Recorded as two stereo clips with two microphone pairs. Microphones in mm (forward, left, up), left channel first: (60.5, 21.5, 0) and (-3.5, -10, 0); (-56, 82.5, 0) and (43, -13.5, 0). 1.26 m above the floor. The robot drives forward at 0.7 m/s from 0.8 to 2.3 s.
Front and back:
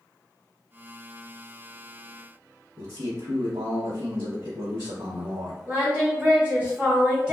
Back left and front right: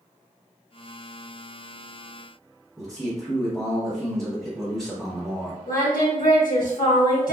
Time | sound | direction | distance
2.8 | a man speaking | 140° right | 1.0 m
5.7 | singing | 135° left | 1.3 m